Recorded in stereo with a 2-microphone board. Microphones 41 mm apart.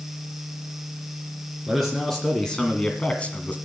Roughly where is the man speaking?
Centre.